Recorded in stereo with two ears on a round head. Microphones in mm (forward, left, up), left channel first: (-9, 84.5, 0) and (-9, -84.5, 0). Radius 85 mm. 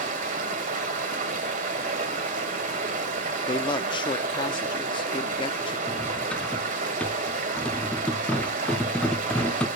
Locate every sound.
0.0 s running water: 40° right (ahead or behind), 2 m
3.4 s a man speaking: 25° left (ahead or behind), 0.6 m
5.9 s cutlery clinking: 5° left (ahead or behind), 0.6 m